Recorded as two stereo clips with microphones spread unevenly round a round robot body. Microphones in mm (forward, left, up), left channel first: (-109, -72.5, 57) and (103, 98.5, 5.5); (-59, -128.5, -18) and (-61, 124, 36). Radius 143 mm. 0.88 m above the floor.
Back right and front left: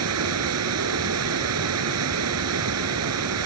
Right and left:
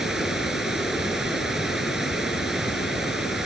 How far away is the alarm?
No alarm in this recording.